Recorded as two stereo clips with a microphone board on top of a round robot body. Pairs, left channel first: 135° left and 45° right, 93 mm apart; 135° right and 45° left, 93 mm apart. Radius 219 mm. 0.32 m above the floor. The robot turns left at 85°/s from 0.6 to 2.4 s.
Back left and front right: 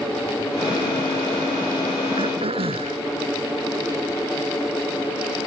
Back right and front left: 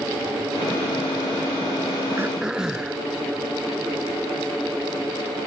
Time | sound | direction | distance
2.2 | throat clearing | 20° right | ?